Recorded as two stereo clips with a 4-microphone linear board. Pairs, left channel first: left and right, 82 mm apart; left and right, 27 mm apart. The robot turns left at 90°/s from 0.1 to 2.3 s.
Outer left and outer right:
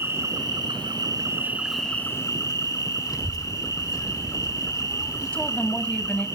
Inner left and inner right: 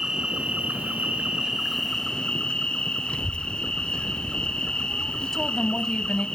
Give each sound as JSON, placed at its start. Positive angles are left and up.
{"t": 0.0, "sound": "an insect", "azimuth_deg": -30, "distance_m": 4.5}
{"t": 3.1, "sound": "a child speaking", "side_deg": 50, "distance_m": 1.9}
{"t": 5.2, "sound": "a woman speaking", "side_deg": 15, "distance_m": 1.2}